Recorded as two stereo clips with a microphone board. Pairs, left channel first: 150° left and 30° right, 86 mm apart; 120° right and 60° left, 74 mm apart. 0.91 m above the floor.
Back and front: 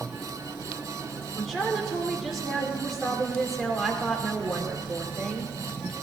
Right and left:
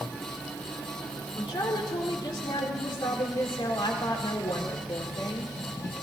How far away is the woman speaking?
About 2 m.